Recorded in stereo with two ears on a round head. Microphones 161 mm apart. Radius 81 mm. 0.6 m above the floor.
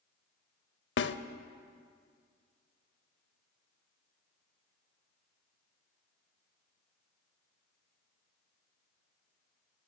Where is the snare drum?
70° left (ahead or behind), 0.6 m.